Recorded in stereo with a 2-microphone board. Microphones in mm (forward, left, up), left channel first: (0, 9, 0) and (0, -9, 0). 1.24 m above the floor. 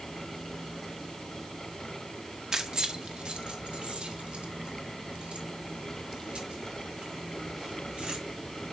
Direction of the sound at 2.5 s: 35° right (ahead or behind).